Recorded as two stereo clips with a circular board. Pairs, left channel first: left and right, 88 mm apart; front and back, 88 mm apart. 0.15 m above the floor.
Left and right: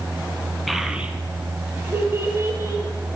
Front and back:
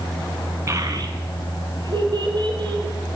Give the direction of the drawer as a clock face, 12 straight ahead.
I don't hear a drawer.